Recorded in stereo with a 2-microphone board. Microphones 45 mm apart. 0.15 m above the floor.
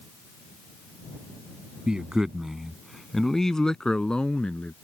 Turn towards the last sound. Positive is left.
turn(degrees=25)  # may be behind; listen again after turning